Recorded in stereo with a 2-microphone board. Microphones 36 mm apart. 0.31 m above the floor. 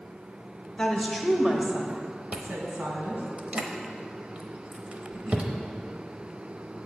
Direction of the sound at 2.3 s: 35° right (ahead or behind).